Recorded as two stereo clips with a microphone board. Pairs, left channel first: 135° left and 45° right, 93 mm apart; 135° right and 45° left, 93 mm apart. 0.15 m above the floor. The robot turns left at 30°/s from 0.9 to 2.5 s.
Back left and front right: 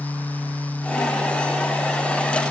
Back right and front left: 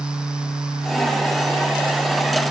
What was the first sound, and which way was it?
Only background noise.